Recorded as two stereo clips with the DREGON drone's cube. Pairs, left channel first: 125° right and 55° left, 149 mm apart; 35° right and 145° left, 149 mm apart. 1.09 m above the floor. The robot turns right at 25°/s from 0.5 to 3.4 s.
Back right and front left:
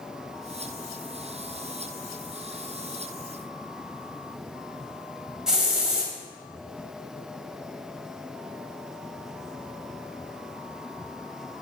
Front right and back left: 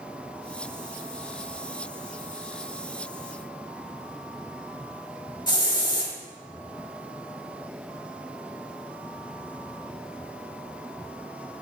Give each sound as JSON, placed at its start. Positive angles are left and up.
{"t": 5.5, "sound": "a hiss", "azimuth_deg": -25, "distance_m": 0.9}